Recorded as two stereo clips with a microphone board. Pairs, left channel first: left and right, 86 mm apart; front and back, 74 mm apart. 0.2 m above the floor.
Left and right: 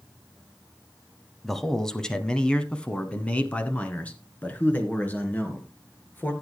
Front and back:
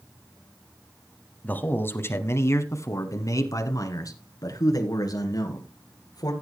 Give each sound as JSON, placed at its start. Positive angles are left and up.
{"t": 1.4, "sound": "a man speaking", "azimuth_deg": 5, "distance_m": 1.2}